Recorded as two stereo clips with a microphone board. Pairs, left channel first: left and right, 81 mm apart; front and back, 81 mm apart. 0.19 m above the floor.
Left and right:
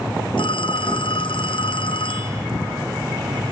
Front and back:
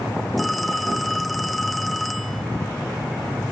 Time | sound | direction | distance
0.4 | a phone ringing | 90° left | ?